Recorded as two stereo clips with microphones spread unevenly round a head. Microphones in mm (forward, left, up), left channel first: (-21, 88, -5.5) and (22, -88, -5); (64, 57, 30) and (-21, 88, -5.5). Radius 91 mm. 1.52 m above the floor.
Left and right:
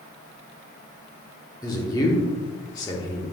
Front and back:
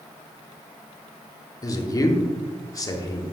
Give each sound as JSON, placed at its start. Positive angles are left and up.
{"t": 1.6, "sound": "a man speaking", "azimuth_deg": 35, "distance_m": 1.2}